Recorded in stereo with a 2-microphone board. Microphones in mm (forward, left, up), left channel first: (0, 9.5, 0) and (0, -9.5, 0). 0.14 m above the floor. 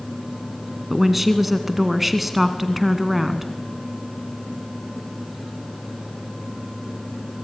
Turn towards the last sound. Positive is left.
turn(degrees=-5)  # may be behind; listen again after turning